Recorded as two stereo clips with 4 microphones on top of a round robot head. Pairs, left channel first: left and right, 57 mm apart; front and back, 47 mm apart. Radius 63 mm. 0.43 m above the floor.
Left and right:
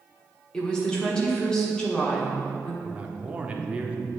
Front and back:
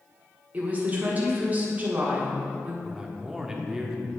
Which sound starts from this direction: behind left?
A woman speaking, at 0.5 s.